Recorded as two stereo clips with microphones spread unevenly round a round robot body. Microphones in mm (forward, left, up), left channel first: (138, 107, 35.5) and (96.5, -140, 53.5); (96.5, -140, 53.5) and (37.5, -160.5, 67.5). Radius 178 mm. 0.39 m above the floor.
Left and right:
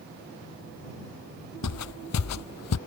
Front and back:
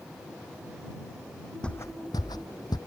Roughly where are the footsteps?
Behind left.